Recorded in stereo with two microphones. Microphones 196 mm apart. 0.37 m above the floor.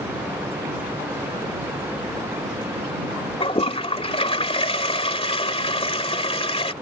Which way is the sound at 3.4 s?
30° left (ahead or behind).